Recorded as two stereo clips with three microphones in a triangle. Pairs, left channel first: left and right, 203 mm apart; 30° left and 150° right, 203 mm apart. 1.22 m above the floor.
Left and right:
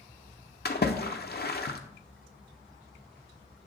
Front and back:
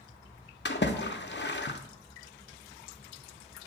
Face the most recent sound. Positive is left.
turn(degrees=55)